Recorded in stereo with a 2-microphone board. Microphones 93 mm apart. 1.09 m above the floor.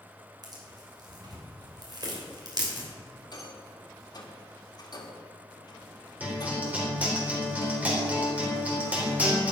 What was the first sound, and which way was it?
Tearing paper, 45° right (ahead or behind).